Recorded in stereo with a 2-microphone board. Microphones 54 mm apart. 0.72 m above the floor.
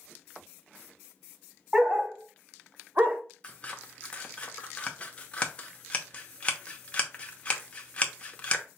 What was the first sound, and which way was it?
A dog barking, 15° right (ahead or behind).